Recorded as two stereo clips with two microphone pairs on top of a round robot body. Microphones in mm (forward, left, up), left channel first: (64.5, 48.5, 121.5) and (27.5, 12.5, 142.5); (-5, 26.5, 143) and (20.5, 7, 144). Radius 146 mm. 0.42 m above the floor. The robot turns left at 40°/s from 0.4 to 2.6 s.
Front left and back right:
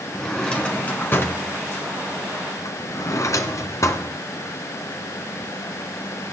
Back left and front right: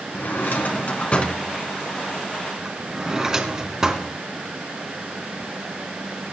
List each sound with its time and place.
0.1 s a drawer: 120° left, 2.5 m; by 4.1 s 35° left, 2.5 m